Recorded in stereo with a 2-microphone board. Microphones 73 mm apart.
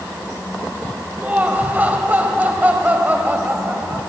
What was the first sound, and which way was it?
Laughter, 25° right (ahead or behind).